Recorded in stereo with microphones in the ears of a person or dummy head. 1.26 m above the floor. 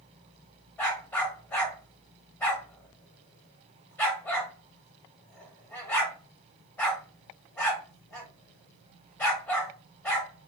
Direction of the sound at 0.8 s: 15° left (ahead or behind).